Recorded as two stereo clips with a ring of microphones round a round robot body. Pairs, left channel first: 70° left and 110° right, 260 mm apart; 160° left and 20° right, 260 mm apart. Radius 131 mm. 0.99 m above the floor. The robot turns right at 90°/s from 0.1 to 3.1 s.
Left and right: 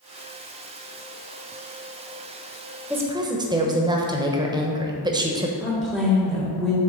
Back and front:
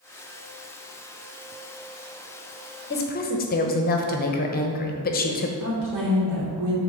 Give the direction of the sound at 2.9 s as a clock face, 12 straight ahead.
6 o'clock.